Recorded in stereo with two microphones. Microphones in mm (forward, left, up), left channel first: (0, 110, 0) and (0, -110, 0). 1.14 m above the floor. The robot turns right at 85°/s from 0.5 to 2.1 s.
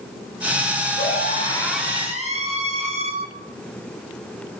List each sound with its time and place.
1.0 s a scream: 115° left, 8 m; by 3.1 s 150° right, 8 m